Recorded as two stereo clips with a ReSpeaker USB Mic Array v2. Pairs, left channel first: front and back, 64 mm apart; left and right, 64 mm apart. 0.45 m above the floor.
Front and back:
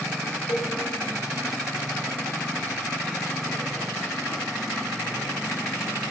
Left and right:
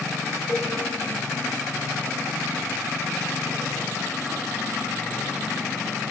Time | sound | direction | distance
0.5 | a cowbell | 35° left | 1.4 m